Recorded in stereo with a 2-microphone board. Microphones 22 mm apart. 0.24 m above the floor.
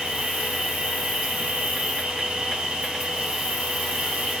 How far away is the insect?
About 6.5 m.